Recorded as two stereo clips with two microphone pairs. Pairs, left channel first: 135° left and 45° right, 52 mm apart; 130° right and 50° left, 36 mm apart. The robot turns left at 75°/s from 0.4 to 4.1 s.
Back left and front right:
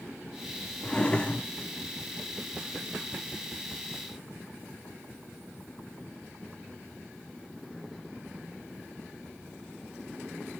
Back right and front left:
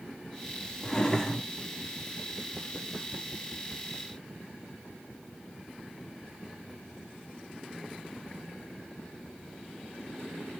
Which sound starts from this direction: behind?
A drawer, at 0.8 s.